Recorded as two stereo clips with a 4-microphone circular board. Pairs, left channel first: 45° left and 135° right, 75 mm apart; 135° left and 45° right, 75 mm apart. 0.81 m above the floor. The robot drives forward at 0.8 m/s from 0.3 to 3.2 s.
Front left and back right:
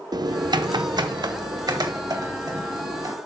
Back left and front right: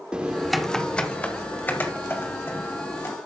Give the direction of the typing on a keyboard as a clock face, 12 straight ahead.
4 o'clock.